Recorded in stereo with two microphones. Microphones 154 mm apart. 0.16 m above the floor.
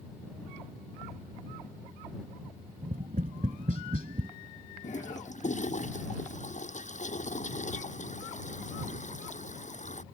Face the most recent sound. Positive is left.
turn(degrees=50)  # may be behind; listen again after turning